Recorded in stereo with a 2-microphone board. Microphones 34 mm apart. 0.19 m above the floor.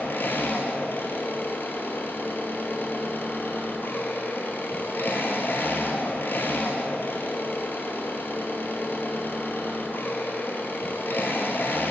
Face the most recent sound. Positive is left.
turn(degrees=75)  # may be behind; listen again after turning